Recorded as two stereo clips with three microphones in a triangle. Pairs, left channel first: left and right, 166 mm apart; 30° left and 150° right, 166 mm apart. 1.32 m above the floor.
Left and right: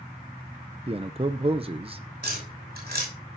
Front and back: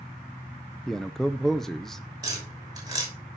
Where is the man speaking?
55° right, 0.6 m.